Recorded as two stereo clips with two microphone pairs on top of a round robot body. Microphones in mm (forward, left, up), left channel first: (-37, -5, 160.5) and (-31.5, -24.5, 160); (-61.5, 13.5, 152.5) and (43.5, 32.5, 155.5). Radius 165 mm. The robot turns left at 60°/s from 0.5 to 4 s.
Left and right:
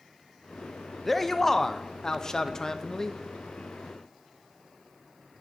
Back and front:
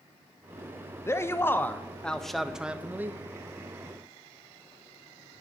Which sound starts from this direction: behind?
A man speaking, at 1.1 s.